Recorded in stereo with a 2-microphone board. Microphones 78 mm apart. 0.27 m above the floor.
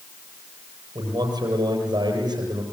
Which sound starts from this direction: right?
A man speaking, at 0.9 s.